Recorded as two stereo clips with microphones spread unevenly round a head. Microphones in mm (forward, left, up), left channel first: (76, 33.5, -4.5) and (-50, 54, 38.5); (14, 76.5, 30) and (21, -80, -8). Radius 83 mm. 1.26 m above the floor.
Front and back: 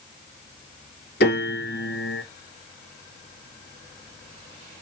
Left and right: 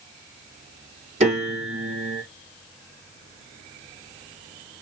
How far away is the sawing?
No sawing in this recording.